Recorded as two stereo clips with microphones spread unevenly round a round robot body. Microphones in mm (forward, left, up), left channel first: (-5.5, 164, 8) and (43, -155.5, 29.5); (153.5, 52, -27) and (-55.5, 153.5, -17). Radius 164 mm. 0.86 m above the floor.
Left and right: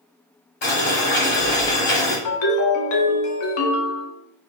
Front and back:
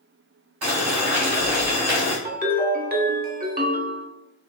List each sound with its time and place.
0.6 s boiling: 160° left, 1.2 m
2.2 s a ringtone: 100° left, 1.0 m